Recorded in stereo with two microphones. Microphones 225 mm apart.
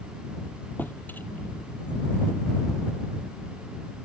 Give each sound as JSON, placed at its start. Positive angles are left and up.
{"t": 0.8, "sound": "a drawer", "side_deg": 10}